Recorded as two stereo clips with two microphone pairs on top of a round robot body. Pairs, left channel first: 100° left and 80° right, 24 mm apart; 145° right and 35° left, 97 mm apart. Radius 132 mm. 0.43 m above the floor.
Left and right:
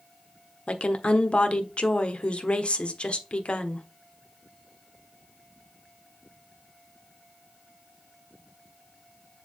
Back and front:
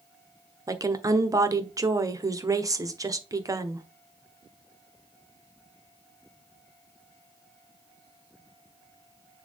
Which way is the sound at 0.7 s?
65° left.